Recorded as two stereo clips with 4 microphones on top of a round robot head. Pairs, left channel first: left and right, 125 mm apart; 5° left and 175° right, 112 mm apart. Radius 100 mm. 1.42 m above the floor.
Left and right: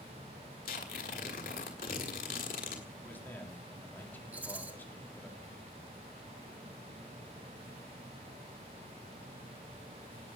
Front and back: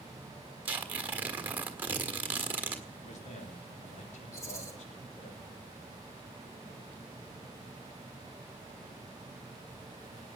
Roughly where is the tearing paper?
Behind left.